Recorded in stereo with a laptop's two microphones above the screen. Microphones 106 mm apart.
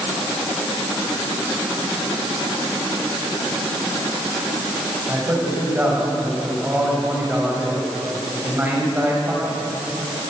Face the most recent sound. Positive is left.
turn(degrees=-20)  # may be behind; listen again after turning